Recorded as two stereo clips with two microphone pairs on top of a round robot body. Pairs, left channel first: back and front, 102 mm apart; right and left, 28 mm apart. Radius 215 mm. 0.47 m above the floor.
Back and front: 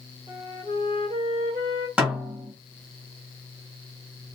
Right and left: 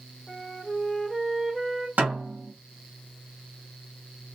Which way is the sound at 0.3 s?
10° left.